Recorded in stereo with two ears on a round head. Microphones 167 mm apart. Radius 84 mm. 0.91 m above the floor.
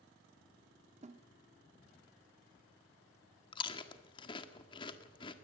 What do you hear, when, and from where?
1.0 s a snare drum: 35° right (ahead or behind), 1.2 m
3.5 s chewing: 25° left (ahead or behind), 1.6 m